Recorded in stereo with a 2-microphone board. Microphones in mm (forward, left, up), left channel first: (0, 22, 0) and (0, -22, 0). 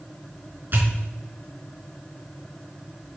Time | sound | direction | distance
0.7 | a pop | 50° right (ahead or behind) | 2.5 m